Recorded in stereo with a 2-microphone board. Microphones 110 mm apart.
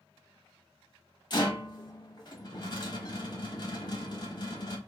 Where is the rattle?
45° left (ahead or behind), 0.8 m.